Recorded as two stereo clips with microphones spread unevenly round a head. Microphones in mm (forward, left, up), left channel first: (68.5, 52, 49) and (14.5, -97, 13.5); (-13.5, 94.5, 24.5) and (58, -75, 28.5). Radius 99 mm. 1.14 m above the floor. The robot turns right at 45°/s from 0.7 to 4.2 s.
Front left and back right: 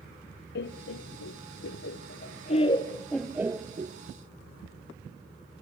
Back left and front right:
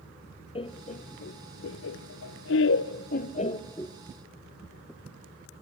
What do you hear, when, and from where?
0.6 s laughter: 50° left, 0.5 m; by 4.0 s 165° right, 0.5 m